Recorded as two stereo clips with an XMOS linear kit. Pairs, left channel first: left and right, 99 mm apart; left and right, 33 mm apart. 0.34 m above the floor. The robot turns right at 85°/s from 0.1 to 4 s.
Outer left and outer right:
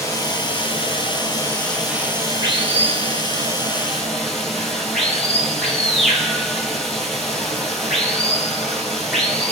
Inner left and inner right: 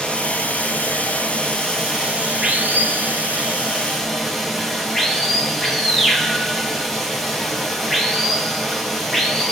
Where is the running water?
30° left, 0.8 m; by 9.5 s straight ahead, 0.8 m.